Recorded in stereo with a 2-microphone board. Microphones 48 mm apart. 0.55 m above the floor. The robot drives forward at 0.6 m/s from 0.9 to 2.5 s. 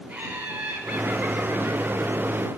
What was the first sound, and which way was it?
Laughter, 25° right (ahead or behind).